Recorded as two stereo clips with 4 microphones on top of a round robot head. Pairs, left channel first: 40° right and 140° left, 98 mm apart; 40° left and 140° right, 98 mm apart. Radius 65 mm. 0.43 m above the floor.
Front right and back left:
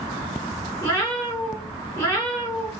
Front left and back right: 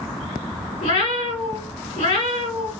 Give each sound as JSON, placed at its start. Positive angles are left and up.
{"t": 0.8, "sound": "a cat meowing", "azimuth_deg": 25, "distance_m": 2.5}